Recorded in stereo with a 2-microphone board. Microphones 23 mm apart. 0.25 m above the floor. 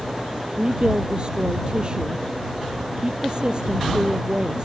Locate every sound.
0.6 s a woman speaking: 35° right (ahead or behind)